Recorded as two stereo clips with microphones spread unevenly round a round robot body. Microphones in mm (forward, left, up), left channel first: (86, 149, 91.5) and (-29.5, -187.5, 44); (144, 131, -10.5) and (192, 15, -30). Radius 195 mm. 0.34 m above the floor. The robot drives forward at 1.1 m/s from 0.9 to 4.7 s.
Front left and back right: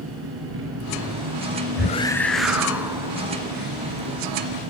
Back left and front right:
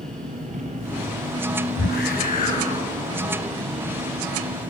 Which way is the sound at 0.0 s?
55° right.